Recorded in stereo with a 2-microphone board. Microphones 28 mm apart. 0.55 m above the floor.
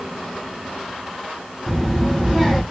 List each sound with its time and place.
1.7 s a child speaking: 15° right (ahead or behind), 2 m